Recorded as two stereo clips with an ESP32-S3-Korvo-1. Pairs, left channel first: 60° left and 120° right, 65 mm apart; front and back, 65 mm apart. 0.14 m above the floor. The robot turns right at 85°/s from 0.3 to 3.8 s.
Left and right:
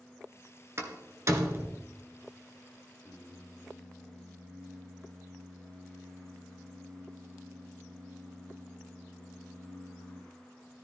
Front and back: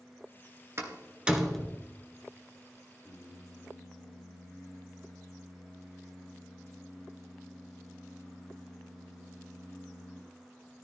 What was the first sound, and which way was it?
A door slam, 150° right.